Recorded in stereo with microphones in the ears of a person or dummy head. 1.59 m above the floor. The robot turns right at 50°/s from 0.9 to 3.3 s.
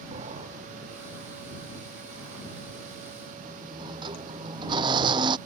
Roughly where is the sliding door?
Behind right.